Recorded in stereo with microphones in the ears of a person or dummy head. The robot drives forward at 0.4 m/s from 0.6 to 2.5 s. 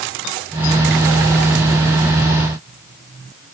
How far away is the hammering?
No hammering in this recording.